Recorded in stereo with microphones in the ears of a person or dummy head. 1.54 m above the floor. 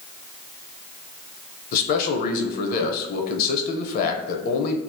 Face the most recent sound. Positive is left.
turn(degrees=50)  # may be behind; listen again after turning